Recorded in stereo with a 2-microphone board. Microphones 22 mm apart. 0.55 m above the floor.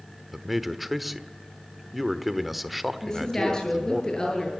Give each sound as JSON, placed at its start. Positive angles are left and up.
{"t": 0.3, "sound": "a man speaking", "side_deg": 0, "distance_m": 1.3}
{"t": 3.0, "sound": "a woman speaking", "side_deg": 30, "distance_m": 8.0}